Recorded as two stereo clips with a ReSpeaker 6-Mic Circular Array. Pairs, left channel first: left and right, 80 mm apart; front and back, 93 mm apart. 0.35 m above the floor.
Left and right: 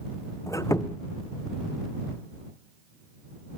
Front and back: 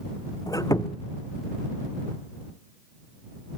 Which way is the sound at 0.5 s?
45° left.